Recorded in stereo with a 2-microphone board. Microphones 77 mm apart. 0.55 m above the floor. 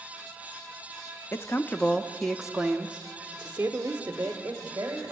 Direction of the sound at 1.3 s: 30° left (ahead or behind).